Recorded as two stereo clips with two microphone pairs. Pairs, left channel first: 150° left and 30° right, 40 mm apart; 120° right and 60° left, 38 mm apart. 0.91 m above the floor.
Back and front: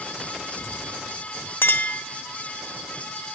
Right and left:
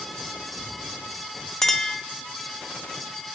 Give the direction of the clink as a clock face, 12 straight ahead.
7 o'clock.